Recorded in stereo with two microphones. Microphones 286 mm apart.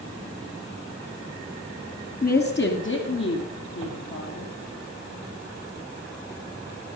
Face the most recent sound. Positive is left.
turn(degrees=55)  # may be behind; listen again after turning